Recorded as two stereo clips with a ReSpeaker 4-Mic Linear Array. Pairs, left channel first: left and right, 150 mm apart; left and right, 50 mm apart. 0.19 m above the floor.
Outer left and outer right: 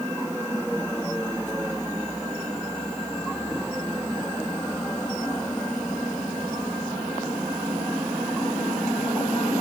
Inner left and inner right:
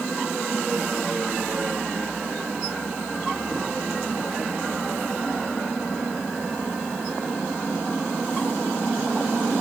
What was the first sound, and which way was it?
Only background noise.